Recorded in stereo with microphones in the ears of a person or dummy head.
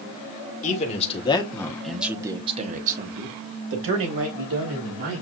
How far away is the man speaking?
About 1.6 m.